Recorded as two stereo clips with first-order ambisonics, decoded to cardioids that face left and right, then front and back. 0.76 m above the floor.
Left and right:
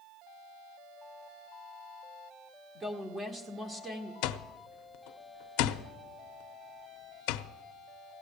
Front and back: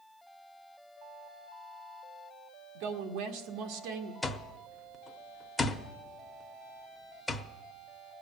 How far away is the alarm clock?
About 0.7 m.